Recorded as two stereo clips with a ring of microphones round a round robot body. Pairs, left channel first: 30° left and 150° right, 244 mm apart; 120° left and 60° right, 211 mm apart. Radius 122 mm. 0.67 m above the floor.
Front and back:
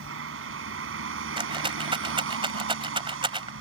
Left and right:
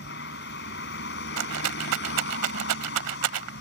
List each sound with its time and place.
0.0 s a vehicle: 170° left
1.4 s a rattle: 80° right